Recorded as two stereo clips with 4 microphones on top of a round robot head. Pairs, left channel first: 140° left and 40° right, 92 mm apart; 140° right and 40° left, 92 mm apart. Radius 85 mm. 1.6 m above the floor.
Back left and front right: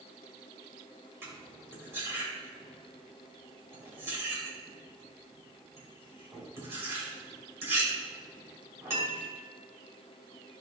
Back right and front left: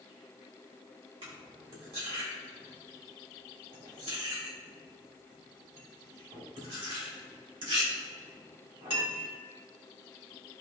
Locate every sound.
1.2 s cutlery clinking: 20° left, 3 m